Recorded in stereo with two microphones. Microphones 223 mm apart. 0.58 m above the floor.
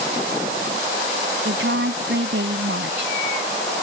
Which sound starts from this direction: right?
A woman speaking, at 1.4 s.